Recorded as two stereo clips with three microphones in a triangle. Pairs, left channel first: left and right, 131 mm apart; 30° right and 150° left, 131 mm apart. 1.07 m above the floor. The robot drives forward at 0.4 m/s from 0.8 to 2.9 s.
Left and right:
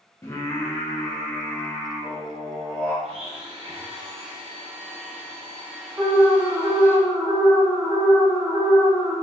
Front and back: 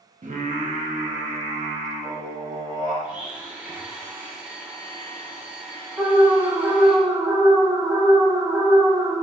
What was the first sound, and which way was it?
Singing, 155° left.